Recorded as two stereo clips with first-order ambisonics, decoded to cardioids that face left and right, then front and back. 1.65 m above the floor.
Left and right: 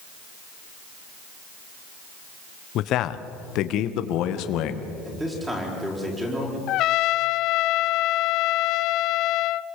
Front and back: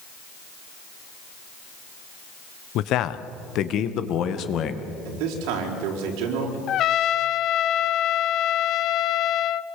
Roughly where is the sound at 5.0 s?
Behind.